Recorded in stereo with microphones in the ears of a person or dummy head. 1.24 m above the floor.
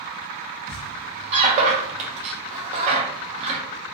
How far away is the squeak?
About 0.7 m.